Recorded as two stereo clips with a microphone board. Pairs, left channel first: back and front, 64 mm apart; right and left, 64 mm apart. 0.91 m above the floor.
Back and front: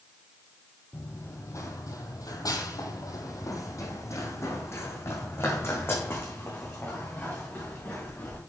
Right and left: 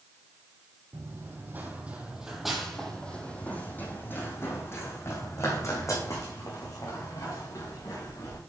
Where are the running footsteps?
135° left, 2.5 m; by 8.4 s 120° right, 6.5 m.